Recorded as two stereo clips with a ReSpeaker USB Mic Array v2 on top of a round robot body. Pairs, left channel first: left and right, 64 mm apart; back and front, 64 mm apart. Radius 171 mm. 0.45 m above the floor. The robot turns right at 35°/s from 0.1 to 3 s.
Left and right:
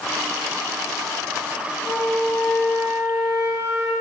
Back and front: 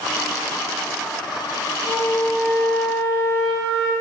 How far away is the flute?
About 5.5 m.